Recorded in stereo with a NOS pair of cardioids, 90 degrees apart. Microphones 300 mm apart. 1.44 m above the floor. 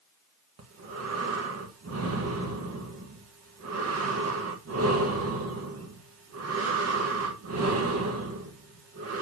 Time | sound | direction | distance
0.6 | breathing | 50° right | 1.7 m